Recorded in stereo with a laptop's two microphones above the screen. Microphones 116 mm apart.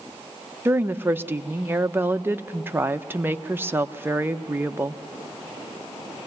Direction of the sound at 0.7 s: 20° right (ahead or behind).